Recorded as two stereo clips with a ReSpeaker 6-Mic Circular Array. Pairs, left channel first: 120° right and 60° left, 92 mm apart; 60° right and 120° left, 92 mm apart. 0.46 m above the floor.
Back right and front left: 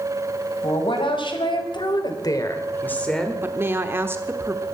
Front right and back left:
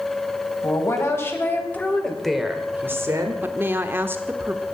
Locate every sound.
0.6 s a woman speaking: 115° right, 3.5 m; by 3.4 s 145° left, 1.9 m
3.4 s a woman speaking: 85° left, 1.0 m